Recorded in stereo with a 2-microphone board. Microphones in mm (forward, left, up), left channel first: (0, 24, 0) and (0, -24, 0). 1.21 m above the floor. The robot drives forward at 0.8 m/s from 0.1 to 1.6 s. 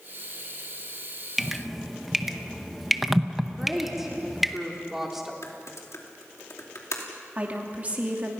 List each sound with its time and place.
1.4 s dripping: 5° right (ahead or behind), 0.7 m
3.6 s a woman speaking: 5° right (ahead or behind), 4 m
5.4 s typing on a keyboard: 85° left, 2.5 m
7.3 s a woman speaking: 30° right (ahead or behind), 3 m